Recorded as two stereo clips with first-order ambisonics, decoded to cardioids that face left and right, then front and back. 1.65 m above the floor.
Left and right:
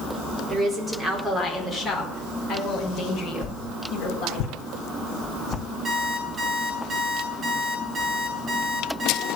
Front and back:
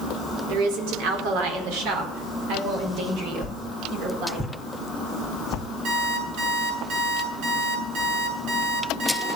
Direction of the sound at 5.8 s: 175° right.